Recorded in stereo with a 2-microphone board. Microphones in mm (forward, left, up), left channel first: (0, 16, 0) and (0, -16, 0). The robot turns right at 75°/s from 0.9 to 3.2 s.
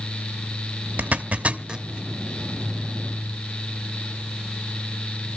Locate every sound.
1.0 s a zipper: 55° right (ahead or behind), 1.0 m; by 1.9 s 20° right (ahead or behind), 1.0 m